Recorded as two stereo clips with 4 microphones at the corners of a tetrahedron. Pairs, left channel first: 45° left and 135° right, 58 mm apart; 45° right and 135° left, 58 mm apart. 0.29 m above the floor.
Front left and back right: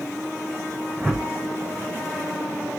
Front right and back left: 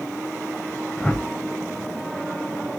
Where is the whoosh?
75° right, 0.8 m.